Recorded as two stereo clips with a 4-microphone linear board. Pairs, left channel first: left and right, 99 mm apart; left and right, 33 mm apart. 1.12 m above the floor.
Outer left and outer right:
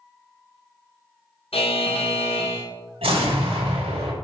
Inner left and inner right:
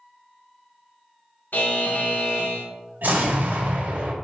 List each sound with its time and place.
1.5 s a buzzer: 75° left (ahead or behind), 0.8 m
3.0 s an explosion: 75° right (ahead or behind), 1.4 m